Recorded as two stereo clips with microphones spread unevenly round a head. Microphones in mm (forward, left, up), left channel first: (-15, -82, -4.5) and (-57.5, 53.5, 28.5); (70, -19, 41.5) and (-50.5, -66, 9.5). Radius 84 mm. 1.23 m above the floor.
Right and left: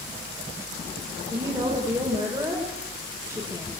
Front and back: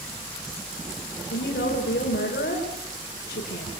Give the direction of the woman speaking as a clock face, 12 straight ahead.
11 o'clock.